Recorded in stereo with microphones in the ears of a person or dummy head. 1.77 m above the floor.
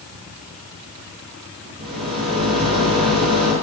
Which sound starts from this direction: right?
A rattle, at 1.8 s.